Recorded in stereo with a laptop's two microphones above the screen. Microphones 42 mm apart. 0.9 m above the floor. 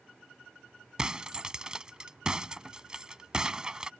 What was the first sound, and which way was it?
Breaking glass, 20° right (ahead or behind).